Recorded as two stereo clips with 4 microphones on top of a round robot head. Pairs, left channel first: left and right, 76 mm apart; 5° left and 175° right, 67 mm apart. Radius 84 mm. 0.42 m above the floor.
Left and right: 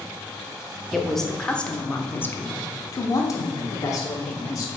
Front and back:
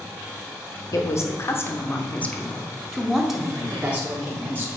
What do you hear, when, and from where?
0.9 s a woman speaking: straight ahead, 1.4 m; by 4.7 s 125° left, 1.9 m